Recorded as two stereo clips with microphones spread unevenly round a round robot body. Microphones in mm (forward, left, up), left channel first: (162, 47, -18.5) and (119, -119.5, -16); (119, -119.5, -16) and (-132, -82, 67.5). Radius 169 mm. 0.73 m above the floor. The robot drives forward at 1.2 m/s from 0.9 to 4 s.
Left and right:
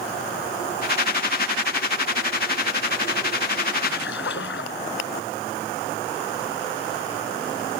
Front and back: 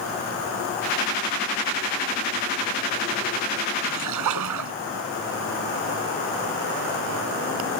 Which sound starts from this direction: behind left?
A splash, at 3.8 s.